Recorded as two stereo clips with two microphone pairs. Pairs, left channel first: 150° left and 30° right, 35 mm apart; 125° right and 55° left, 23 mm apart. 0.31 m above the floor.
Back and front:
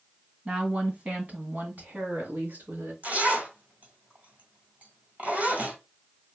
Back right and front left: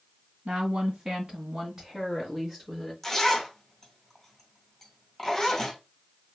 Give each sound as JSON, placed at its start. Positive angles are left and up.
{"t": 0.5, "sound": "a woman speaking", "azimuth_deg": 20, "distance_m": 2.0}
{"t": 3.0, "sound": "a zipper", "azimuth_deg": -50, "distance_m": 2.0}